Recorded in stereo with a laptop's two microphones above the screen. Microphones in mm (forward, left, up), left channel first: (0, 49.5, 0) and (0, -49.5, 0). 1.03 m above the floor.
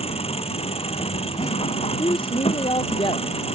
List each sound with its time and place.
0.0 s an engine running: 85° left
2.0 s a woman speaking: 60° left (ahead or behind)